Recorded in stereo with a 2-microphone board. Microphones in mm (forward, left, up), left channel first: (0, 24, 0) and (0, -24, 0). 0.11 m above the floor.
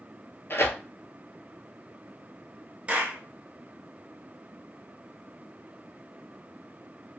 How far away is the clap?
About 0.9 m.